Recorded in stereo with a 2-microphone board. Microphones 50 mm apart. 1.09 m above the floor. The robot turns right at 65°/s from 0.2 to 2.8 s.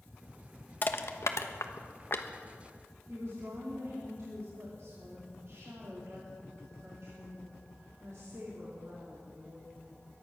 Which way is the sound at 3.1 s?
70° right (ahead or behind).